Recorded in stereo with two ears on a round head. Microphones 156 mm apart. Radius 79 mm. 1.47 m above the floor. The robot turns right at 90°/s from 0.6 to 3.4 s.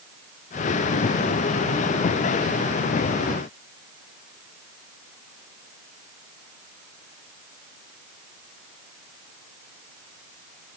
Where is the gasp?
I don't hear a gasp.